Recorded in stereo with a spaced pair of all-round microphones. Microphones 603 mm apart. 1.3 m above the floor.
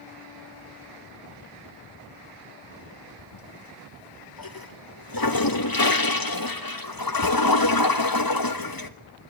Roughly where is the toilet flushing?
Left.